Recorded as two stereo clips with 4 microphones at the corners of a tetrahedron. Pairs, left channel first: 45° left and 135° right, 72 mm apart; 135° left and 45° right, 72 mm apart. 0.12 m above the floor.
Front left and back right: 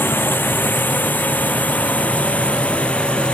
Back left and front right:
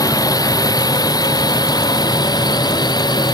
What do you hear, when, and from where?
0.0 s a drone: 105° left; by 3.4 s 120° left